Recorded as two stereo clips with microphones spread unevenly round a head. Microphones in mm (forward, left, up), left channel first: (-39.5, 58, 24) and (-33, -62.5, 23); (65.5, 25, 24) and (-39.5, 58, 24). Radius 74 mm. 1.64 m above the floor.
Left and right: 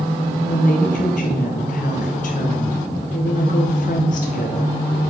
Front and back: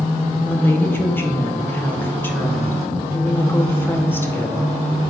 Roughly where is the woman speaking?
Ahead left.